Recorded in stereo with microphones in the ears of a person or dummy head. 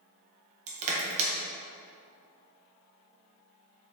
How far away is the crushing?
About 1.1 m.